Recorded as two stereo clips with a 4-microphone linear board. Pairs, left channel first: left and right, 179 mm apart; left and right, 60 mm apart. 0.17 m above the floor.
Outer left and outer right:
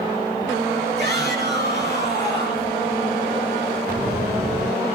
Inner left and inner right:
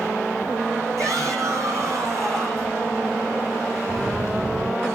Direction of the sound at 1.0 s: 70° right (ahead or behind).